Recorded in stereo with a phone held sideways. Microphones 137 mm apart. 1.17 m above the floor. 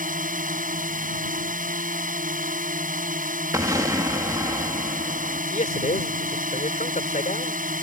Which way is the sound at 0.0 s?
85° right.